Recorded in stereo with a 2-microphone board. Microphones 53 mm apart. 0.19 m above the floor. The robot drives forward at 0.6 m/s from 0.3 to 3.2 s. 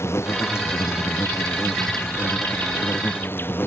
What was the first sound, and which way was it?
An insect, 55° left (ahead or behind).